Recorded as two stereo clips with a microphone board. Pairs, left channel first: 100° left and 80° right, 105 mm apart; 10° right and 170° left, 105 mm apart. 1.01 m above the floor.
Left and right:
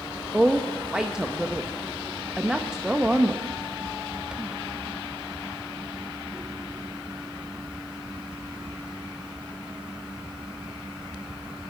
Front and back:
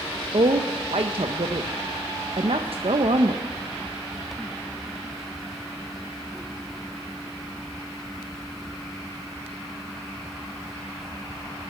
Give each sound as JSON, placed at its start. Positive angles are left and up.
{"t": 0.3, "sound": "a woman speaking", "azimuth_deg": -160, "distance_m": 0.6}